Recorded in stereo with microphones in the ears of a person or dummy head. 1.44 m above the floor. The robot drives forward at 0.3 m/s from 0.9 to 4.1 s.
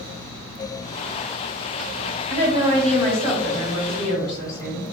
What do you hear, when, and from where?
2.3 s a woman speaking: 35° right (ahead or behind), 1.4 m; by 4.8 s 25° right (ahead or behind), 1.8 m